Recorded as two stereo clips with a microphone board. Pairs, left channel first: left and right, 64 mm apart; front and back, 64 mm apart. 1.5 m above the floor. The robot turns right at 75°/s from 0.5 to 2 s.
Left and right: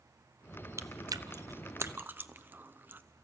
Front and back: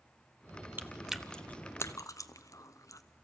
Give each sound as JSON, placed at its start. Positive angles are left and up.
{"t": 0.8, "sound": "chewing", "azimuth_deg": -125, "distance_m": 0.6}